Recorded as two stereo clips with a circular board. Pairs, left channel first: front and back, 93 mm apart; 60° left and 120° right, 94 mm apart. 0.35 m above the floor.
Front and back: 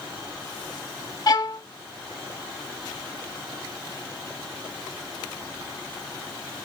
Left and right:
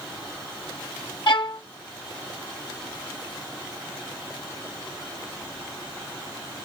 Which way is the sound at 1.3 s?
40° left.